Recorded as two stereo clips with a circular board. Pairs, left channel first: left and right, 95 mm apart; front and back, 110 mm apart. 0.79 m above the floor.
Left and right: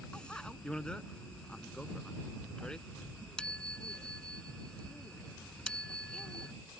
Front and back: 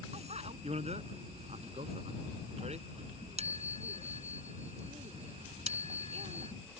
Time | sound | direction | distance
0.1 | a bicycle bell | 170° left | ?